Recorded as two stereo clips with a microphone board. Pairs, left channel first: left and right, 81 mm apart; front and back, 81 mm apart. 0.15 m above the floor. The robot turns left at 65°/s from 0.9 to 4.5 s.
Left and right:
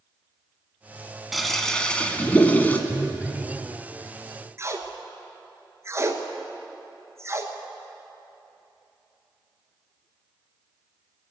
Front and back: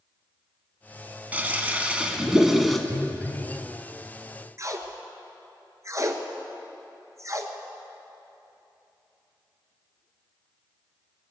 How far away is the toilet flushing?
About 1.1 m.